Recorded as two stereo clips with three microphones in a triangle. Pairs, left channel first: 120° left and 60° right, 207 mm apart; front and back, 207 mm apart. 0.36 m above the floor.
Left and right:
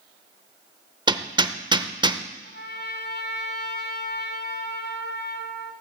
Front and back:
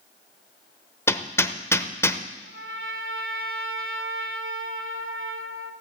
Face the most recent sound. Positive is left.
turn(degrees=160)